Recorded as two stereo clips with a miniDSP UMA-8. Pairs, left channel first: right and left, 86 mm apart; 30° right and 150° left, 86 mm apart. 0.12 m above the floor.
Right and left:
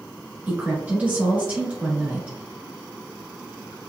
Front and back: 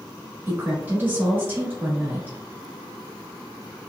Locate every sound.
0.5 s a woman speaking: 125° left, 1.2 m